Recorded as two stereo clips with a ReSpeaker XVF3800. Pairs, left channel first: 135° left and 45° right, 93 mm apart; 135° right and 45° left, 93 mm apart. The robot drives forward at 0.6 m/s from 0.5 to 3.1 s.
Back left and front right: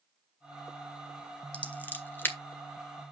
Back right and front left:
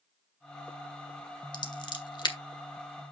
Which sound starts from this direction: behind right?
Scissors, at 1.5 s.